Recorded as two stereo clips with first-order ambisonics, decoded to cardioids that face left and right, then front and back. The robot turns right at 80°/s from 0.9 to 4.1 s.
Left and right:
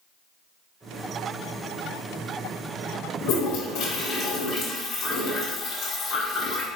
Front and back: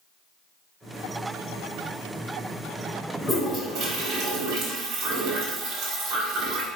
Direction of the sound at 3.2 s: 75° left.